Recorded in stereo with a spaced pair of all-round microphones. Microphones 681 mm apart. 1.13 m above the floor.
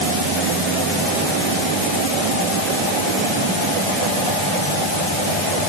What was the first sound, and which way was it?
Only background noise.